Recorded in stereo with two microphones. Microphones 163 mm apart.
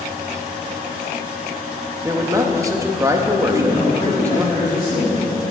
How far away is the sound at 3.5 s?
About 2.5 m.